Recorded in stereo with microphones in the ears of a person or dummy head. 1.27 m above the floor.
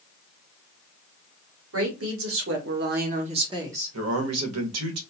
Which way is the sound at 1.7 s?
70° right (ahead or behind).